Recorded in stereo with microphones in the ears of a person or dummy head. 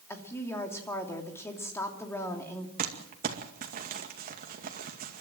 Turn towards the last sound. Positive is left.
turn(degrees=-45)  # may be behind; listen again after turning